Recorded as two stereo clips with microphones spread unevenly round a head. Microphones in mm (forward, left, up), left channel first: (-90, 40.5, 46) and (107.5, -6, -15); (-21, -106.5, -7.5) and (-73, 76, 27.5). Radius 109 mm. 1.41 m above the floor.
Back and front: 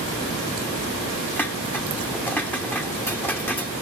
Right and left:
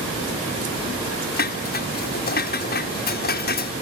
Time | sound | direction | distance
1.4 | dishes clattering | 115° right | ?